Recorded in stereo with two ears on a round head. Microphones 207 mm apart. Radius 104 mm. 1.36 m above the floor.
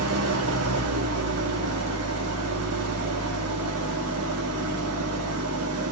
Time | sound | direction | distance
0.0 | an engine running | 70° right (ahead or behind) | 1.2 m